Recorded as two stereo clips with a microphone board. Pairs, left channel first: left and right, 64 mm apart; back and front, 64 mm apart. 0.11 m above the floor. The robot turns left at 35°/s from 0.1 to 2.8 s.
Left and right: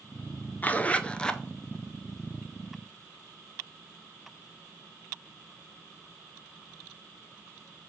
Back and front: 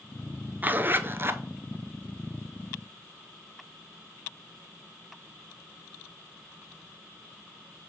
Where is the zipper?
45° left, 0.5 m; by 1.4 s 15° left, 0.5 m.